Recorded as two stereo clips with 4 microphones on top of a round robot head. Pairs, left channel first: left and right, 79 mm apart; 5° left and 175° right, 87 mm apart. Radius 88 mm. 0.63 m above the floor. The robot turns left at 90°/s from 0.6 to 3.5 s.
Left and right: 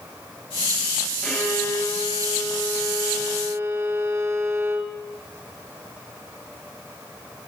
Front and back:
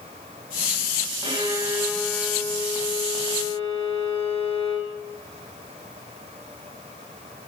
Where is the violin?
165° left, 5.5 m; by 4.9 s 40° right, 5.5 m.